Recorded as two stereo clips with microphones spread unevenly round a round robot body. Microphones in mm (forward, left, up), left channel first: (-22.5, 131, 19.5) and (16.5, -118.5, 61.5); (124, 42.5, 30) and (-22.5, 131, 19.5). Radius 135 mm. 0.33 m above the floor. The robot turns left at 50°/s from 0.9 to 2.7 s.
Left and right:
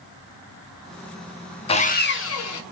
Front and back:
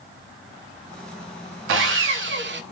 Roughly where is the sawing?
Behind.